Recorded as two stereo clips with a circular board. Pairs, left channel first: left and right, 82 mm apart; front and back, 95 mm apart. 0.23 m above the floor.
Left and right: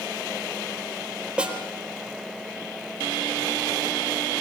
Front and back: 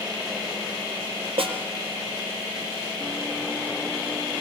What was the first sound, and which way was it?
A snare drum, 165° right.